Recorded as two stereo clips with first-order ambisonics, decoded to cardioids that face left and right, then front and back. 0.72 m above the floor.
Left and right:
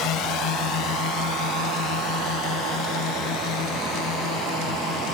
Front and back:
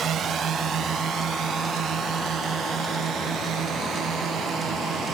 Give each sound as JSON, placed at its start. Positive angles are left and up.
{"t": 0.0, "sound": "a drone", "azimuth_deg": 125}